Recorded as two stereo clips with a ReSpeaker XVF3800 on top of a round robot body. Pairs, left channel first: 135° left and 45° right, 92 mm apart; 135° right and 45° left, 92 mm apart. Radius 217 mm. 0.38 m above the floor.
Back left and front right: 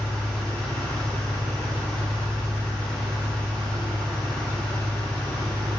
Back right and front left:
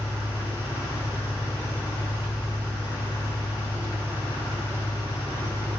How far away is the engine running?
About 4.5 m.